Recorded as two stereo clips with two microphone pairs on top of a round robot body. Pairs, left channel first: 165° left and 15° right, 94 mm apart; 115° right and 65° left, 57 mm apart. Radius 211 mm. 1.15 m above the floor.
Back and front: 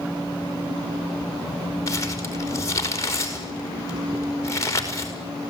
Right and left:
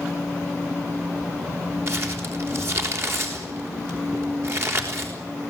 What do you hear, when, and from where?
1.9 s crumpling: 110° left, 5 m